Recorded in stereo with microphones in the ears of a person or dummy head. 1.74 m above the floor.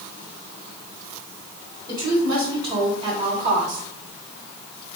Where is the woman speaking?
15° right (ahead or behind), 2 m; by 3.8 s 40° right (ahead or behind), 1.3 m.